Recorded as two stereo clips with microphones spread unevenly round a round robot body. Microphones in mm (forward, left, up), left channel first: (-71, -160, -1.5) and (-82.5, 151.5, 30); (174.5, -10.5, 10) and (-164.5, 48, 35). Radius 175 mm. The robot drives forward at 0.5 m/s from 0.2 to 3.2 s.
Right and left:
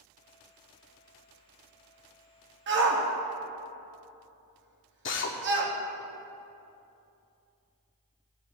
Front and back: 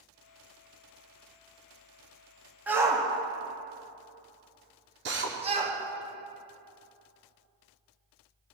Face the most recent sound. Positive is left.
turn(degrees=-130)